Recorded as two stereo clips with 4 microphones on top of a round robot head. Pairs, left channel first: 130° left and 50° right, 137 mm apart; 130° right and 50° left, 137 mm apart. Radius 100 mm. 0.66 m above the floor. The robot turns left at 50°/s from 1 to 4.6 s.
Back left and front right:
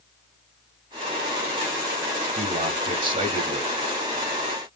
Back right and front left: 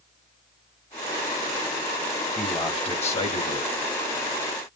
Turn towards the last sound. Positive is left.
turn(degrees=-175)